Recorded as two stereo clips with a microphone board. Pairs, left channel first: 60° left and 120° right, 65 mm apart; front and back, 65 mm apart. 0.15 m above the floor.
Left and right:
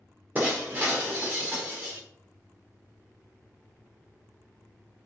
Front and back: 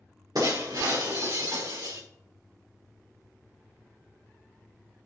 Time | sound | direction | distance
0.3 | breaking glass | straight behind | 4 m